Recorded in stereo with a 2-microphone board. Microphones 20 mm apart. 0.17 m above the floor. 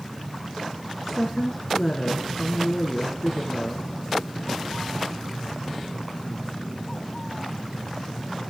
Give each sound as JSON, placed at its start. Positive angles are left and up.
{"t": 1.0, "sound": "a woman speaking", "side_deg": 5, "distance_m": 2.5}